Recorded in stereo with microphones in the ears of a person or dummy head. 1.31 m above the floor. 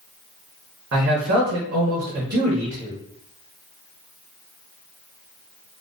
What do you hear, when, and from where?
0.9 s a man speaking: 55° right (ahead or behind), 0.9 m